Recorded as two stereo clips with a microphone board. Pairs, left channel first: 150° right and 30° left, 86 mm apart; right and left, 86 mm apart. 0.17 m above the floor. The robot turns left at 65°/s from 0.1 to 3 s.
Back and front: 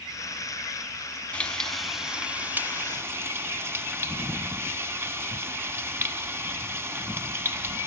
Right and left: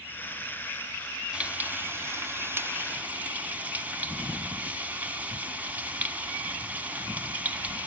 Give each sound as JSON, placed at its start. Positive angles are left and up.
{"t": 1.3, "sound": "frying", "azimuth_deg": 150, "distance_m": 0.7}